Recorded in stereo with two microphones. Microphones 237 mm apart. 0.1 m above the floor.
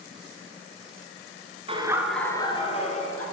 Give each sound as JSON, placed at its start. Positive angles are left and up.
{"t": 1.7, "sound": "laughter", "side_deg": -25, "distance_m": 1.1}